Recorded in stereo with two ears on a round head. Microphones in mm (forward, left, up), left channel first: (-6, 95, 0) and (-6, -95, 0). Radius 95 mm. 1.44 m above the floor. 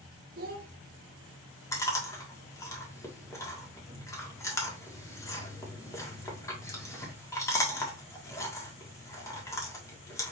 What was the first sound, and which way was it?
A child speaking, 45° right (ahead or behind).